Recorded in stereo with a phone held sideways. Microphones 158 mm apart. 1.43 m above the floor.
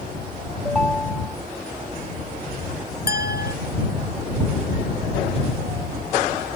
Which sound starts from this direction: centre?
A ringtone, at 0.7 s.